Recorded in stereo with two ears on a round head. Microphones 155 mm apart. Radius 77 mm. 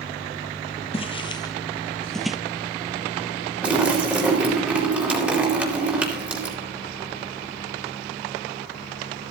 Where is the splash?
10° right (ahead or behind), 4 m.